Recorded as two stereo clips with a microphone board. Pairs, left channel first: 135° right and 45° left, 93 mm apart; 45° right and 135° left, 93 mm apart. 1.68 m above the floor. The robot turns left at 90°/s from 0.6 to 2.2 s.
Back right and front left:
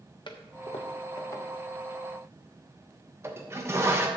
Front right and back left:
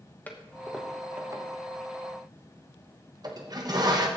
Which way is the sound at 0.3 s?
115° right.